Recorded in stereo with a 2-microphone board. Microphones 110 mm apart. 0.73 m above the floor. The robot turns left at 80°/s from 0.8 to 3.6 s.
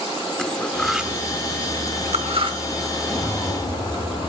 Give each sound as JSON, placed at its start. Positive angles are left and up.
{"t": 0.4, "sound": "cutlery clinking", "side_deg": 5, "distance_m": 0.9}
{"t": 3.0, "sound": "a zipper", "azimuth_deg": 135, "distance_m": 9.0}